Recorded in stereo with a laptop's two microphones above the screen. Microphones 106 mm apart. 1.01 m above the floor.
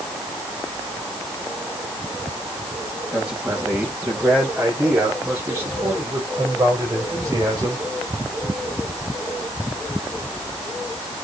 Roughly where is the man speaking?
Centre.